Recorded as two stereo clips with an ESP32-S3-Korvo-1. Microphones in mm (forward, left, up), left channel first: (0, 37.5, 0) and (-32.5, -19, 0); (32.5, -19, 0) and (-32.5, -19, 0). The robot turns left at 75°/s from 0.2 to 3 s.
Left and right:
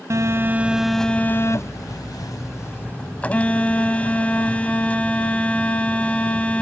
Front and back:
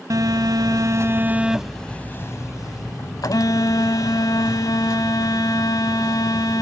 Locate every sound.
0.1 s a phone buzzing: 160° right; by 6.6 s 10° right